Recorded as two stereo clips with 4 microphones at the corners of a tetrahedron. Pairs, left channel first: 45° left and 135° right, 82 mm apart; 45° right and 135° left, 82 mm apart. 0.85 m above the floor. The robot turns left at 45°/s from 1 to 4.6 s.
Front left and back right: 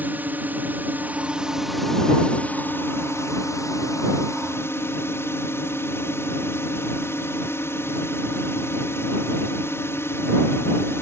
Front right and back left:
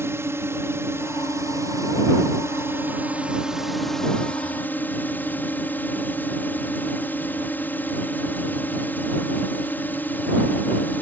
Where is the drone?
170° left; by 11.0 s 10° left.